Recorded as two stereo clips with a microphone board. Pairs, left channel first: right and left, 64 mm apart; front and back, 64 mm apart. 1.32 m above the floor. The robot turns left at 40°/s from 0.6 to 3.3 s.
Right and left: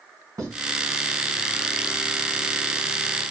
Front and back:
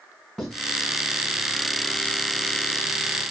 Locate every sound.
0.4 s writing: 90° left, 1.8 m